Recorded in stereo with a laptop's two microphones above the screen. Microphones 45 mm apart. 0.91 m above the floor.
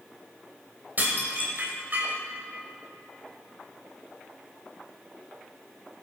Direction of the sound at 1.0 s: 40° right (ahead or behind).